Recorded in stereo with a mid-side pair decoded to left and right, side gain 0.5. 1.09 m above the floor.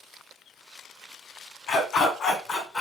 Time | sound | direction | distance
1.7 | a dog barking | 70° left | 2.5 m